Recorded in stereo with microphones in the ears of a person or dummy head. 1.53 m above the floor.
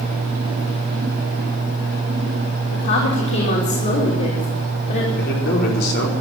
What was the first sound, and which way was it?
A woman speaking, 60° left (ahead or behind).